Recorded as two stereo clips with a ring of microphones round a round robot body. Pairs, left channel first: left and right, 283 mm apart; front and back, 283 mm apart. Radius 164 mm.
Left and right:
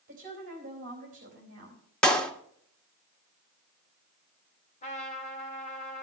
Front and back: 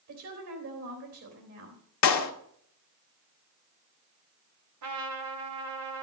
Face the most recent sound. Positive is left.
turn(degrees=155)